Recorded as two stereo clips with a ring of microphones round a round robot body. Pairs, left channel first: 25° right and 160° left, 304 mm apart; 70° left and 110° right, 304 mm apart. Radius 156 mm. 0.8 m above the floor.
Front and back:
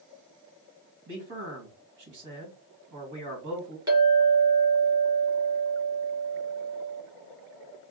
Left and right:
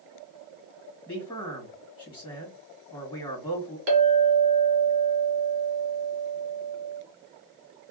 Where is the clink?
125° right, 1.6 m.